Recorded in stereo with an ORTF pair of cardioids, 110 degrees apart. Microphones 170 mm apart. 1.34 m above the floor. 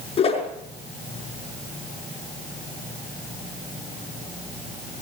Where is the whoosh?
35° left, 5.5 m.